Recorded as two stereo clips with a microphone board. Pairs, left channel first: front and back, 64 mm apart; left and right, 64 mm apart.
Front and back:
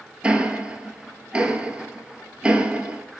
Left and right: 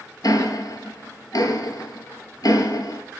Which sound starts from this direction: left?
Ticking, at 0.2 s.